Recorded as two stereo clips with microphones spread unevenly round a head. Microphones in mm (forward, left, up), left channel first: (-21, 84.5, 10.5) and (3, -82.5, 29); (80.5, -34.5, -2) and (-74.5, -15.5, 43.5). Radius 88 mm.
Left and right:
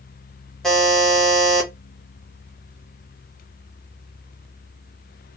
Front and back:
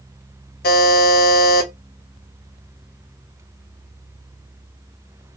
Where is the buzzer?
Straight ahead, 0.8 m.